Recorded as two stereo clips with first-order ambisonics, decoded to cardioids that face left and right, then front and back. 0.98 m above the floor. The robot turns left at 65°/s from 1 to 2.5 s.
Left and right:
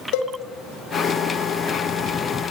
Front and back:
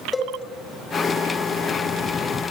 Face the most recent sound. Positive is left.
turn(degrees=-20)